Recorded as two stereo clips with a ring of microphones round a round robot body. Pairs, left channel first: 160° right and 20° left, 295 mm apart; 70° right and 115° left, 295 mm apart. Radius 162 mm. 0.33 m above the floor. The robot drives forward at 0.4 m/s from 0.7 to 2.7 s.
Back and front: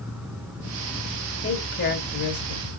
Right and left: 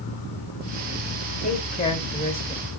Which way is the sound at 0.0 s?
60° right.